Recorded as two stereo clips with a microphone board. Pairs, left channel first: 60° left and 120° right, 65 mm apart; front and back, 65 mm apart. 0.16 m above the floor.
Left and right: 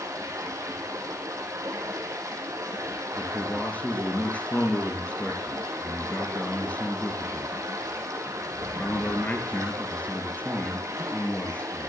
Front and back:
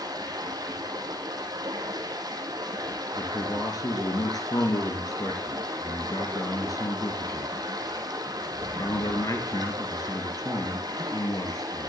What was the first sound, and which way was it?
Running water, 160° right.